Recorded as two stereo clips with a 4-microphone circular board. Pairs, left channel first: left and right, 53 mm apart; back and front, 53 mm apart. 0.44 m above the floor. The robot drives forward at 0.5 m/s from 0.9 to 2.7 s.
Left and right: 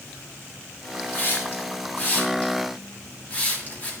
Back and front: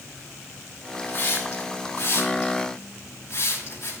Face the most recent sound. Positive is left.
turn(degrees=145)